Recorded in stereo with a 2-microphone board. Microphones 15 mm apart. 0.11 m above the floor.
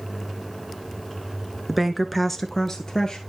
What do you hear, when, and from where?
1.7 s a woman speaking: 15° right (ahead or behind), 1.1 m; by 3.2 s 50° left (ahead or behind), 1.6 m